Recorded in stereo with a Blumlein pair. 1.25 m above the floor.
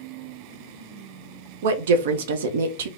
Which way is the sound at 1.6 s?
60° right.